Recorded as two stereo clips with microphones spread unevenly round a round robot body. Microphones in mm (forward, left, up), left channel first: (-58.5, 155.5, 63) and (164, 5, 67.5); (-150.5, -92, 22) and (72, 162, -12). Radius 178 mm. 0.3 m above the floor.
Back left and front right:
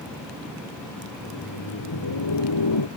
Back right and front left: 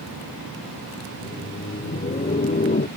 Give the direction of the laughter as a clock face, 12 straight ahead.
7 o'clock.